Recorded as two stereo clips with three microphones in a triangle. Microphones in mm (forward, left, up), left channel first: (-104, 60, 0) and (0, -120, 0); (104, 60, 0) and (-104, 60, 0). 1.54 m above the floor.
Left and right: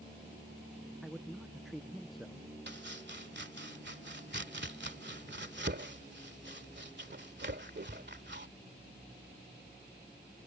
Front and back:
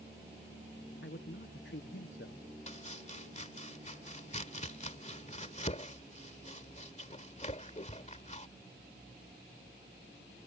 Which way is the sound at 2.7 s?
50° right.